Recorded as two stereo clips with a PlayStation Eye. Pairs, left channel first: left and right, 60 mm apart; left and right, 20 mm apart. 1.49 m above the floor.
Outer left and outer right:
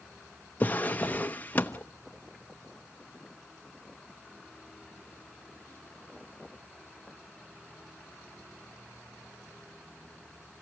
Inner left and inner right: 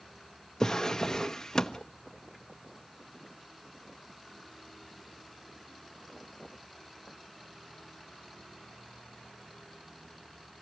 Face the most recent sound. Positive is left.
turn(degrees=30)  # may be behind; listen again after turning